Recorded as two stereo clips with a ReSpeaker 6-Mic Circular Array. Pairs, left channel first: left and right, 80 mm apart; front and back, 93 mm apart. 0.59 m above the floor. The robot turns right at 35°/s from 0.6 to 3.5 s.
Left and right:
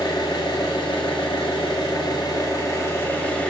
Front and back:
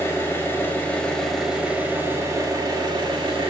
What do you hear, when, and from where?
0.0 s an engine running: 65° left, 0.8 m; by 3.5 s 165° left, 0.8 m